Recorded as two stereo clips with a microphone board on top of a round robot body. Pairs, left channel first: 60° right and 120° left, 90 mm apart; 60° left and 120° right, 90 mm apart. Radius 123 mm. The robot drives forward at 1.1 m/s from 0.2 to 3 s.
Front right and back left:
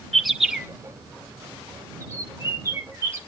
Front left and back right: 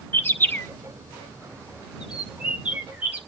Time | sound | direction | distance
0.1 | a bird | 30° left | 1.6 m